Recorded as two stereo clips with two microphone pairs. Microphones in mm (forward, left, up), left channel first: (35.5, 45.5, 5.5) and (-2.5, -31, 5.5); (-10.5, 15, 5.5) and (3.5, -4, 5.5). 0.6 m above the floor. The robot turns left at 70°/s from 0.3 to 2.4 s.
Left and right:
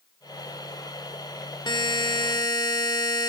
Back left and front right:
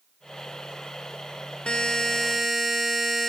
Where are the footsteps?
I don't hear footsteps.